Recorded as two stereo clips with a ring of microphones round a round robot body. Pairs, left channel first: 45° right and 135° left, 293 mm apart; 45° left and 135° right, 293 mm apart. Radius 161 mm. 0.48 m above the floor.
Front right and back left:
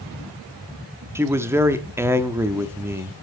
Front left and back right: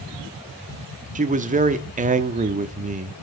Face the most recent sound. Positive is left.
turn(degrees=-155)